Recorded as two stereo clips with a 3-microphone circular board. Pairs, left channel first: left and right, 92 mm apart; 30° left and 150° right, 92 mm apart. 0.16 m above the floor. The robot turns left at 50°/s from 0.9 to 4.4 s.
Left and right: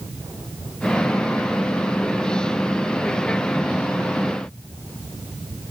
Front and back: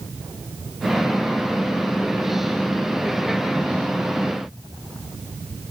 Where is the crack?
I don't hear a crack.